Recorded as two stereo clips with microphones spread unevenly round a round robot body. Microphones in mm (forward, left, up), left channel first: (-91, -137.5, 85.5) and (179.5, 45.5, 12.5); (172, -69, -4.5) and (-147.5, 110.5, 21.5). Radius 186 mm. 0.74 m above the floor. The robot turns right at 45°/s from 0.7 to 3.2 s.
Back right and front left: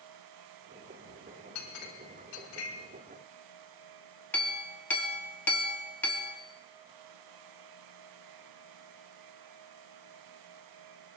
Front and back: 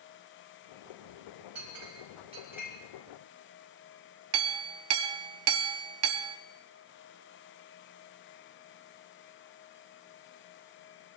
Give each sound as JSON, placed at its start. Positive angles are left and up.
{"t": 1.6, "sound": "a clink", "azimuth_deg": -170, "distance_m": 4.0}
{"t": 4.3, "sound": "a clink", "azimuth_deg": 125, "distance_m": 0.8}